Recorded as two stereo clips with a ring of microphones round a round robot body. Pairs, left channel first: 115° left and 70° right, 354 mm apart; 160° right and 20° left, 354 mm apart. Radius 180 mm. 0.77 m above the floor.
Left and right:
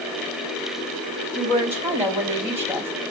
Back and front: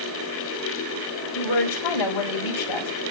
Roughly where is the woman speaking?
Behind right.